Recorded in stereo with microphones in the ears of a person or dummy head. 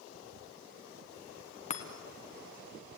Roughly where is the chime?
Left.